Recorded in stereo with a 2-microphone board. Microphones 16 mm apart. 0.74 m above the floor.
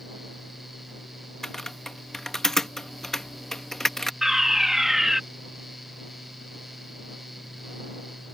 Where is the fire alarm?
25° right (ahead or behind).